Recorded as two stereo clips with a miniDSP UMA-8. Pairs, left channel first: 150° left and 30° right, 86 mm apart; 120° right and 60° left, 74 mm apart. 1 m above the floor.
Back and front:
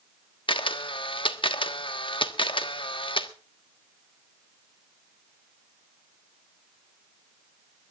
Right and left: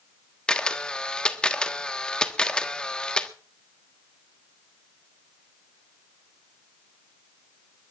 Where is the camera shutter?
160° left, 1.3 m.